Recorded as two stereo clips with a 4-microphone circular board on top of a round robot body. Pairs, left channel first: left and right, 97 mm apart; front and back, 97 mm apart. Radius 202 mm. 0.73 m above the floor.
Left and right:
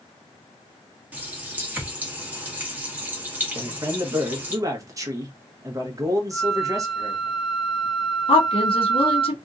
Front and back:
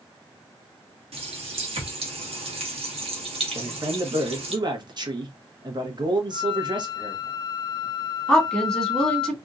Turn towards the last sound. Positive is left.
turn(degrees=80)